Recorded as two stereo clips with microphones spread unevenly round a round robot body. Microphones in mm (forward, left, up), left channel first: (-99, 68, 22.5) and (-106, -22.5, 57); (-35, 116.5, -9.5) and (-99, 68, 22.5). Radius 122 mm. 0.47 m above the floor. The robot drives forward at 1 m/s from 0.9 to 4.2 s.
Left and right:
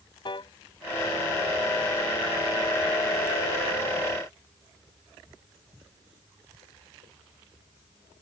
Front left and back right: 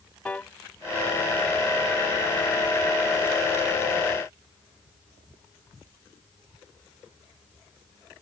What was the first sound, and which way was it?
A piano, 115° left.